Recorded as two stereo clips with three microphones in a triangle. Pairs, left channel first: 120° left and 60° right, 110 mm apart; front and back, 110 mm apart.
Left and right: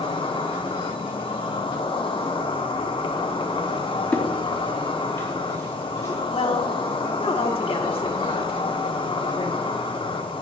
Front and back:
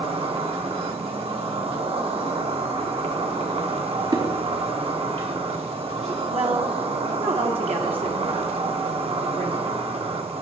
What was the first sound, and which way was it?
An insect, 155° left.